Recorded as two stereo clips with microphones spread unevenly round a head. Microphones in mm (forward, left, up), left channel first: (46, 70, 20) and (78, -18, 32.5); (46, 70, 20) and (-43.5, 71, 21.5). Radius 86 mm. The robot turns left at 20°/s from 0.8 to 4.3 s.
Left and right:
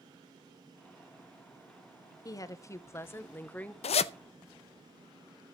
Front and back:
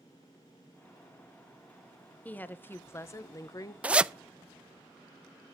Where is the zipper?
105° left, 0.5 m; by 4.1 s 100° left, 0.5 m.